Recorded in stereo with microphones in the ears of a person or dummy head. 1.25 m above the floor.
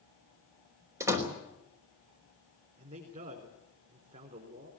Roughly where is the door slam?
Centre.